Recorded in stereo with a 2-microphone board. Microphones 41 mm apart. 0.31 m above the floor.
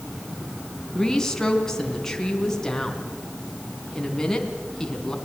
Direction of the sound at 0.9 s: 10° left (ahead or behind).